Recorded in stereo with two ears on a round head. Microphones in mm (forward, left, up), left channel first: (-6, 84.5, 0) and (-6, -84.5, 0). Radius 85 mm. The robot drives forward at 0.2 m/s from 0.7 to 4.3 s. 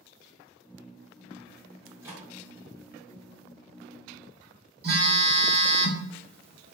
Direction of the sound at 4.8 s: 55° right (ahead or behind).